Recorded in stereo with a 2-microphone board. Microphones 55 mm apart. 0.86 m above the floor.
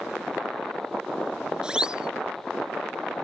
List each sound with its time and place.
1.6 s a siren: 15° right (ahead or behind)